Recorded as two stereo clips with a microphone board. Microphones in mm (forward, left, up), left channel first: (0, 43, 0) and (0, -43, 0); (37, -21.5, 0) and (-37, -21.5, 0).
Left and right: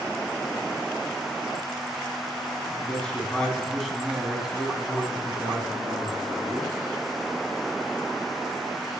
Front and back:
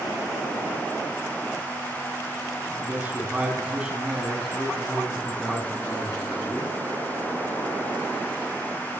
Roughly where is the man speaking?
Behind left.